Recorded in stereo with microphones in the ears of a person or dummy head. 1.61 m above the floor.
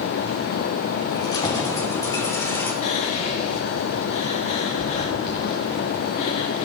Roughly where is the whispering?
Left.